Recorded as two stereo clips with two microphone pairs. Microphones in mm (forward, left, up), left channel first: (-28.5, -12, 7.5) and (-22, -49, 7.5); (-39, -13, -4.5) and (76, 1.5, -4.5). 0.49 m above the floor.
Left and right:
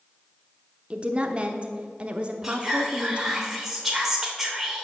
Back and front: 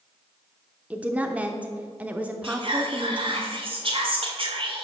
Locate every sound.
0.9 s a woman speaking: 60° right, 0.7 m
2.4 s whispering: straight ahead, 1.9 m